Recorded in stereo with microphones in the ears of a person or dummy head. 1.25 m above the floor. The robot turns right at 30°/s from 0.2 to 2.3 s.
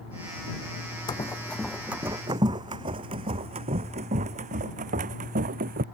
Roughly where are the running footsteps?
Left.